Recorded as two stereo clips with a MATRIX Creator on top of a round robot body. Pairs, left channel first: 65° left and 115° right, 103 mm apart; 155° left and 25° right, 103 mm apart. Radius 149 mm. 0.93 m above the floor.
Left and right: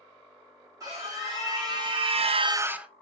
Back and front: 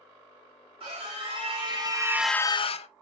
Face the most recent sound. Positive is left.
turn(degrees=165)